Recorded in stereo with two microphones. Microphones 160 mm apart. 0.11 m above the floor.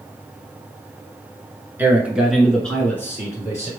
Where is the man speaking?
10° right (ahead or behind), 1.1 m; by 3.7 s 25° left (ahead or behind), 1.2 m.